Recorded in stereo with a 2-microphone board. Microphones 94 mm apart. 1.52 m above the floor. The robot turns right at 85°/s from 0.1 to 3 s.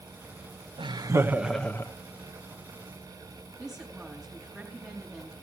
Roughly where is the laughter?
Ahead right.